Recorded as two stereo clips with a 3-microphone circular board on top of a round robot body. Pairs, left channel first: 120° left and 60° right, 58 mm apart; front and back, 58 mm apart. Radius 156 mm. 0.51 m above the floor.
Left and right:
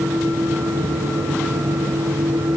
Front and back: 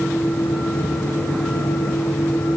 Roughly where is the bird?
I don't hear a bird.